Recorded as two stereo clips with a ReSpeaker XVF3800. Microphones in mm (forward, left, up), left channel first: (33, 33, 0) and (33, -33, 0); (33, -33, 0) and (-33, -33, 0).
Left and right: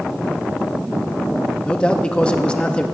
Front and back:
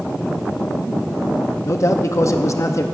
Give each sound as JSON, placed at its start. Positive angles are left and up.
{"t": 1.6, "sound": "a man speaking", "azimuth_deg": 20, "distance_m": 0.6}